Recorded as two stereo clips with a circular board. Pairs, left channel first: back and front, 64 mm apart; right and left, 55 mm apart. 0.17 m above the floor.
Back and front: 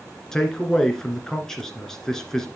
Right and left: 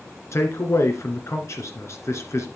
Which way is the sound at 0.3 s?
100° right.